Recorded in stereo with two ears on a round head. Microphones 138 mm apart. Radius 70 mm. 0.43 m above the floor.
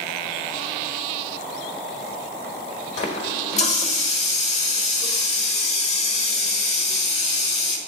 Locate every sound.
3.0 s a running tap: 45° left (ahead or behind), 1.2 m